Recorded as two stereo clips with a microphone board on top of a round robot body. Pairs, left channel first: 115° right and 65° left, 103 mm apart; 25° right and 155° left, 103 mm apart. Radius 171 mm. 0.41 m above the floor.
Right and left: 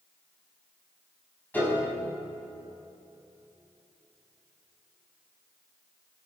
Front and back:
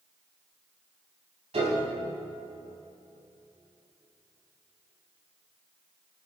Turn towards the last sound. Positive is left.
turn(degrees=175)